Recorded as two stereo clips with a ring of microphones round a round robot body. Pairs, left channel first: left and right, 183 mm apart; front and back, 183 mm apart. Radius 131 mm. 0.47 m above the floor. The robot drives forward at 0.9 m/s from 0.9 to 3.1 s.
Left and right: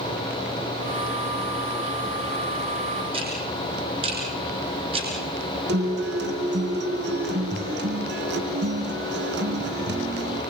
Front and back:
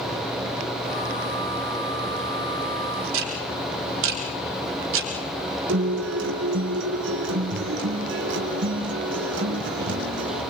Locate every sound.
3.1 s ticking: 160° right, 3 m
5.7 s a guitar: 140° right, 3 m